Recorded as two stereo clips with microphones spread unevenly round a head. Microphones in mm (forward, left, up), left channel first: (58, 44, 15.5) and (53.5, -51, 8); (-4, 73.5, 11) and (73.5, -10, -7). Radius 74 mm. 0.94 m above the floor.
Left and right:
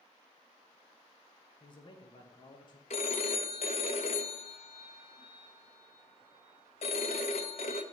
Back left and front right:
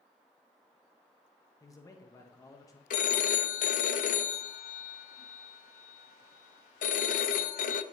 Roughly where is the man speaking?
Left.